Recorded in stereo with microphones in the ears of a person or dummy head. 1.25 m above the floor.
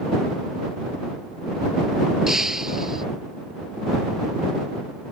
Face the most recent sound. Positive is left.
turn(degrees=-5)  # may be behind; listen again after turning